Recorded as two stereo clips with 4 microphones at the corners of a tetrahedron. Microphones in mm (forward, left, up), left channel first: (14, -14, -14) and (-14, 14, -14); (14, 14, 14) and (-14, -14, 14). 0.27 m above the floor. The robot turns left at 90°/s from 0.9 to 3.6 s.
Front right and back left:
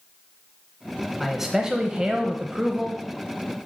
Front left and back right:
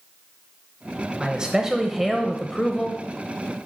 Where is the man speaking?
145° right, 0.9 m; by 3.0 s 55° left, 0.9 m.